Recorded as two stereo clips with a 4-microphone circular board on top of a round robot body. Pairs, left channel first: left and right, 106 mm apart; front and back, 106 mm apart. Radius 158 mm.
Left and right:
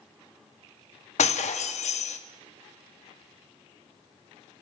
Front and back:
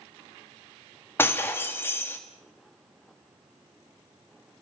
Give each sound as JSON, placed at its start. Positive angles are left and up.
{"t": 1.2, "sound": "breaking glass", "azimuth_deg": 70, "distance_m": 1.3}